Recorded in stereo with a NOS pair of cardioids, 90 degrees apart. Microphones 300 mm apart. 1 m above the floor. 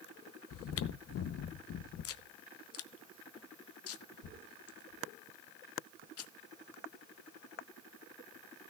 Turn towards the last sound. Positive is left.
turn(degrees=50)